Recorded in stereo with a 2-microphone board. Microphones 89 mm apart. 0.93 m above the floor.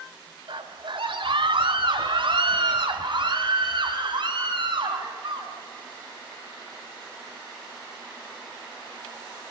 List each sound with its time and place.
0.5 s a scream: 80° right, 2.5 m; by 5.5 s 65° right (ahead or behind), 6.5 m